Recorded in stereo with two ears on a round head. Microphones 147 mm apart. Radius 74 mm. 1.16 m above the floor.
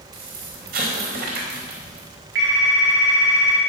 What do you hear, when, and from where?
0.1 s an explosion: 60° right (ahead or behind), 4.5 m
2.4 s a phone ringing: 85° right, 7 m